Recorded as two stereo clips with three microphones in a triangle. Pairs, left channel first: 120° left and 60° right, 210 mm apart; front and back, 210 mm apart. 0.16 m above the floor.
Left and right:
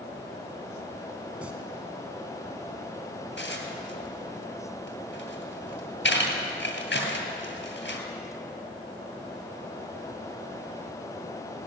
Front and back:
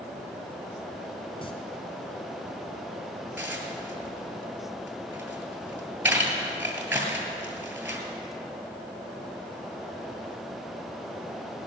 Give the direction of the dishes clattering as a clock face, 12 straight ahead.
9 o'clock.